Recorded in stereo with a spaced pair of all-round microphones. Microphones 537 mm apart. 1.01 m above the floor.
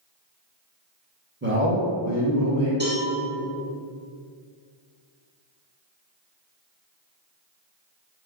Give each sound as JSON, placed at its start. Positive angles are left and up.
{"t": 1.4, "sound": "a man speaking", "side_deg": -20, "distance_m": 1.2}
{"t": 2.8, "sound": "a cowbell", "side_deg": -20, "distance_m": 1.4}